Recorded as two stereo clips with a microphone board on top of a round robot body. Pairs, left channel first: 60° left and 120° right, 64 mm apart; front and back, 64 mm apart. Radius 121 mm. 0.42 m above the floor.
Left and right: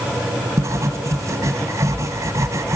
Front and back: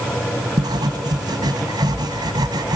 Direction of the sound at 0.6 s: 165° right.